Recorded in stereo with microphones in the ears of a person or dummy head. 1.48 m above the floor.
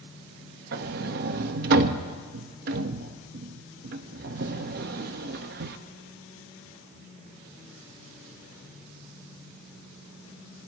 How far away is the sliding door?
About 0.7 m.